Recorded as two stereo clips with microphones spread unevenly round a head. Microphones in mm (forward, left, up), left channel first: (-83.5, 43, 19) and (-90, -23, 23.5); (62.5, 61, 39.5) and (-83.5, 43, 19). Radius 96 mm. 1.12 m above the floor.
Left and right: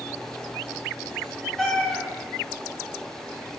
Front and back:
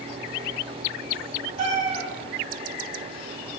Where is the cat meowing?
170° left, 0.6 m.